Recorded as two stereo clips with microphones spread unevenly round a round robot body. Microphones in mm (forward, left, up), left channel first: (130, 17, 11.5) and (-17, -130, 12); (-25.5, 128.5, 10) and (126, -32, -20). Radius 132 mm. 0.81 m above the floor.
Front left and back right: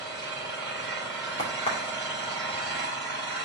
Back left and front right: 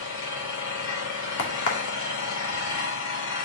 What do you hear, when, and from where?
0.0 s an engine running: 135° left, 6.5 m
1.4 s a crack: 115° left, 2.5 m